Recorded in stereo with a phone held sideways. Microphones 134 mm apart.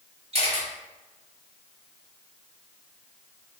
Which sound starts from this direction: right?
A camera shutter, at 0.3 s.